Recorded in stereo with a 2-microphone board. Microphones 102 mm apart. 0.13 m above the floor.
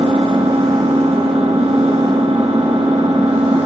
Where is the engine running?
70° right (ahead or behind), 6.5 m.